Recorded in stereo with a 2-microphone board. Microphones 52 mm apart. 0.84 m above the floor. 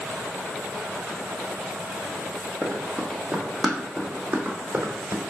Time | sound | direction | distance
2.6 | running footsteps | 5° left (ahead or behind) | 1.8 m